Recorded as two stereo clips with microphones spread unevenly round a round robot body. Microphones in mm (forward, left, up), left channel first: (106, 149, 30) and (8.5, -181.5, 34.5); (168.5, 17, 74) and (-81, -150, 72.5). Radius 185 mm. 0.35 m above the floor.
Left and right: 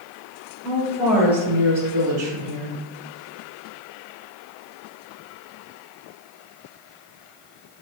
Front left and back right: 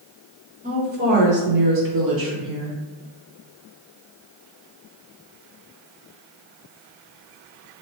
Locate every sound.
0.6 s a woman speaking: 165° left, 1.0 m; by 2.8 s 175° left, 1.9 m